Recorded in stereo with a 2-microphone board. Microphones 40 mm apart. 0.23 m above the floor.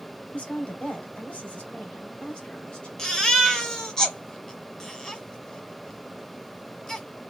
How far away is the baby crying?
About 0.8 m.